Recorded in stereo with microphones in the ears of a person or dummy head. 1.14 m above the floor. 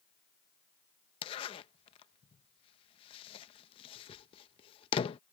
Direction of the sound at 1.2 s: 30° left (ahead or behind).